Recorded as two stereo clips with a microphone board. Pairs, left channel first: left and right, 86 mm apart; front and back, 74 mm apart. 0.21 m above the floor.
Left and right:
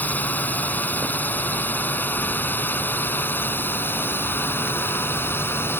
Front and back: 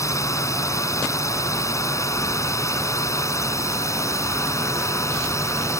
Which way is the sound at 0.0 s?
25° left.